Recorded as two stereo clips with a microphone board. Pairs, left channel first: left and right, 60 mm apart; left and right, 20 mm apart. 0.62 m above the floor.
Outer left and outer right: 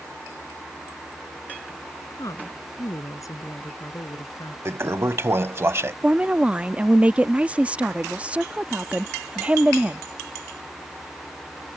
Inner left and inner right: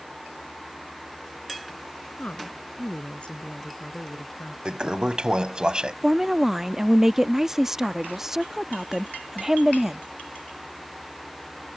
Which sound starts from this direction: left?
A woman speaking, at 2.1 s.